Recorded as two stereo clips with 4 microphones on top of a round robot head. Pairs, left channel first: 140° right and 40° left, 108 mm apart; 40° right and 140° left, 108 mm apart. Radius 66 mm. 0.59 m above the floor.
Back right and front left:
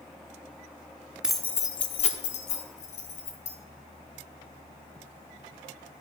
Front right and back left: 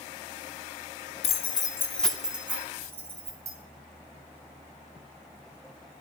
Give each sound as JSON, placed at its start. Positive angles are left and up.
{"t": 1.2, "sound": "keys jangling", "azimuth_deg": -45, "distance_m": 0.7}